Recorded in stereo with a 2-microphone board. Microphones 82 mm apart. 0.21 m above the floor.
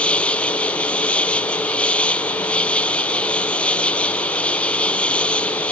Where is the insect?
15° left (ahead or behind).